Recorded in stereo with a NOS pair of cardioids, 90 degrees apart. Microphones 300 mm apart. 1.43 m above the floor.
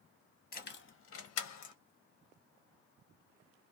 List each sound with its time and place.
0.5 s keys jangling: 30° left, 0.9 m; by 1.8 s 75° left, 0.9 m